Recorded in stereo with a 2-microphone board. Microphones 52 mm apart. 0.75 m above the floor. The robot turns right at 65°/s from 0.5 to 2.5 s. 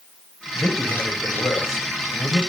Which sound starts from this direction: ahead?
A man speaking, at 0.6 s.